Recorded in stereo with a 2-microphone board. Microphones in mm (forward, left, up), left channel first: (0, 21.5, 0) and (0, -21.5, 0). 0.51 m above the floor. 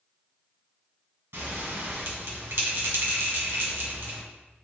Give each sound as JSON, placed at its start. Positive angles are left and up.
{"t": 1.3, "sound": "a bell", "side_deg": -75, "distance_m": 1.2}